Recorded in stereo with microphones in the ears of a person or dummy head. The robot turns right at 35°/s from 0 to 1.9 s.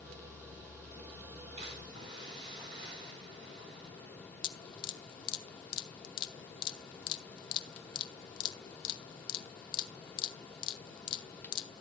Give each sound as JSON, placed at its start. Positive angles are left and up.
{"t": 1.6, "sound": "a splash", "side_deg": -40, "distance_m": 5.5}
{"t": 4.4, "sound": "dripping", "side_deg": 35, "distance_m": 0.8}